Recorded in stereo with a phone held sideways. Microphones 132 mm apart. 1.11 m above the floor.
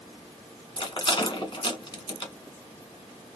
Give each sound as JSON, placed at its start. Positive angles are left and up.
{"t": 0.8, "sound": "a rattle", "side_deg": 40, "distance_m": 1.1}